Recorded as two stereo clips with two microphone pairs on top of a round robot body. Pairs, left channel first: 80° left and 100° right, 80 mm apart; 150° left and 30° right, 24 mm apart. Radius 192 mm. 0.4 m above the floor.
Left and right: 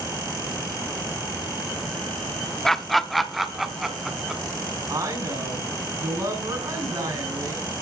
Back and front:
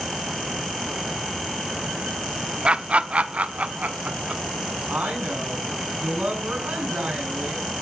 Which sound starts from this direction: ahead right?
A woman speaking, at 4.9 s.